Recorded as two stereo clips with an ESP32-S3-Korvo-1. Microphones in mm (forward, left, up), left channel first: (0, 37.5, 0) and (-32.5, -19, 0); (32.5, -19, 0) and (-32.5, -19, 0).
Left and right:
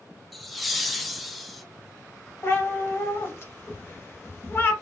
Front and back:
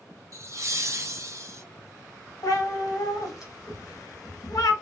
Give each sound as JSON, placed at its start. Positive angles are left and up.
{"t": 0.3, "sound": "laughter", "azimuth_deg": 150, "distance_m": 0.6}
{"t": 2.4, "sound": "a cat meowing", "azimuth_deg": 10, "distance_m": 0.7}